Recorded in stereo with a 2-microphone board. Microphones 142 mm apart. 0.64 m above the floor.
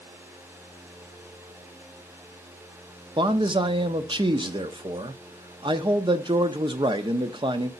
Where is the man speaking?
35° right (ahead or behind), 0.7 m.